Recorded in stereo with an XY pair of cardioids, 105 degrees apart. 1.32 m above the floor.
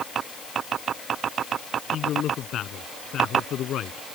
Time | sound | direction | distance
1.9 | a man speaking | 70° left | ?